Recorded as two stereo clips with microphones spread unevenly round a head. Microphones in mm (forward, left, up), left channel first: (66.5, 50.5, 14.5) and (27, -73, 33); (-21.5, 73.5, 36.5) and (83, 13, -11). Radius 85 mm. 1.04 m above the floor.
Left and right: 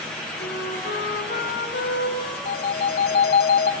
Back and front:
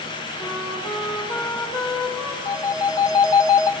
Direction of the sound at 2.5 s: 90° left.